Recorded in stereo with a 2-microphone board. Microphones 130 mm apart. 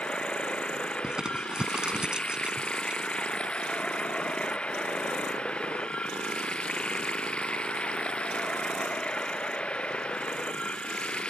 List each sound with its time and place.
0.0 s running water: 10° left (ahead or behind)
1.0 s crumpling: 5° right (ahead or behind)